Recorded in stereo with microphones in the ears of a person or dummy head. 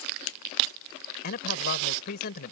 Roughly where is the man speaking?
Left.